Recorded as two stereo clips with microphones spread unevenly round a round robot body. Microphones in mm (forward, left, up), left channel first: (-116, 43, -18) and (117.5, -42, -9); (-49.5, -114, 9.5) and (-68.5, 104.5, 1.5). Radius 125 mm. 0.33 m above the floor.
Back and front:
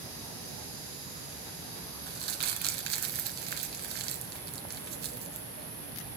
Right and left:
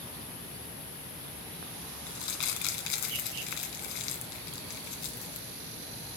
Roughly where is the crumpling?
Right.